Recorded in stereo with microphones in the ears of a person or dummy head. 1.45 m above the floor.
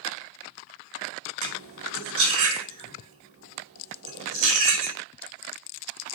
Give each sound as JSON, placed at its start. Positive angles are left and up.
{"t": 1.4, "sound": "cutlery clinking", "side_deg": -70, "distance_m": 2.5}